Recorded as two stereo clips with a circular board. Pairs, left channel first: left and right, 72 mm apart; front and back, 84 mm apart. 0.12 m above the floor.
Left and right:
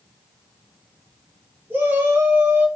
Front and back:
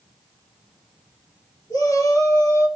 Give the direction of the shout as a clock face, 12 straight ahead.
1 o'clock.